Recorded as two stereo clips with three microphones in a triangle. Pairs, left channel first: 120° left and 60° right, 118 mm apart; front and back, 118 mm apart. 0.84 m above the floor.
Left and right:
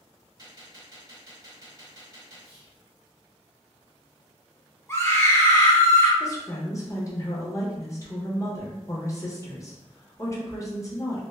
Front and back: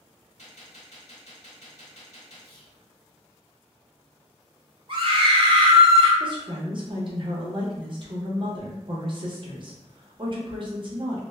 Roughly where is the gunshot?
Ahead.